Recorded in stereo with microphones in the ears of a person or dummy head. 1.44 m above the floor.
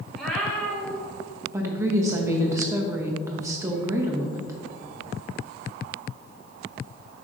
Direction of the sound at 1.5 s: 15° right (ahead or behind).